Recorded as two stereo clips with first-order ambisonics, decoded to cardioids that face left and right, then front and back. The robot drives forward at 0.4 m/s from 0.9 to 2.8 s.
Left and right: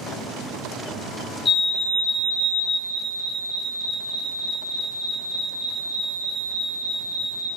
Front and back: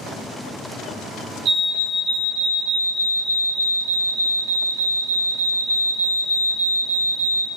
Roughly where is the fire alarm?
Behind left.